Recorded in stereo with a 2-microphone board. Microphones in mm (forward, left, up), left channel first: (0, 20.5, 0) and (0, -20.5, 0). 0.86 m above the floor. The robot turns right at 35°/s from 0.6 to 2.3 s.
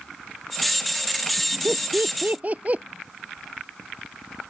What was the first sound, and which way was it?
Laughter, 60° right (ahead or behind).